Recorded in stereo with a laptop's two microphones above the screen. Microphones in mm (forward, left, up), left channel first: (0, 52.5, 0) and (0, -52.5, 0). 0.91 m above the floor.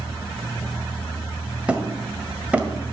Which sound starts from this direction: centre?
Hammering, at 1.7 s.